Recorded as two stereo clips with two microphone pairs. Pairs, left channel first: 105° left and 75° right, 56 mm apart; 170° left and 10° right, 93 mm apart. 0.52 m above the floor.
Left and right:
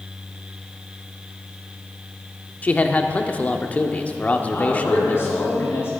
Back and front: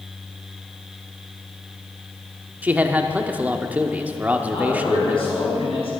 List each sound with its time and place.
2.6 s a man speaking: 55° left, 0.8 m
4.5 s a man speaking: 155° left, 5 m